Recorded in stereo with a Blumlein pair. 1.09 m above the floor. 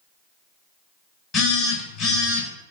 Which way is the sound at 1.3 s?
25° left.